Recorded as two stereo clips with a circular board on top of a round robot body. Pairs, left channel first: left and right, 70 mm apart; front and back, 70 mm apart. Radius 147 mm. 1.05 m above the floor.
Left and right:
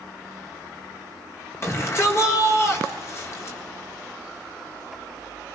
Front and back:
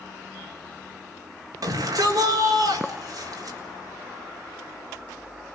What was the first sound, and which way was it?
A shout, 145° left.